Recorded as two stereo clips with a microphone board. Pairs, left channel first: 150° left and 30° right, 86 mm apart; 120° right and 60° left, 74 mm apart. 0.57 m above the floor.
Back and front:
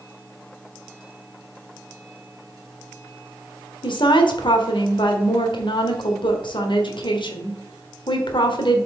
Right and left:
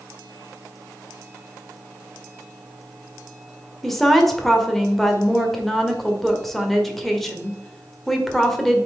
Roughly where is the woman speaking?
Behind left.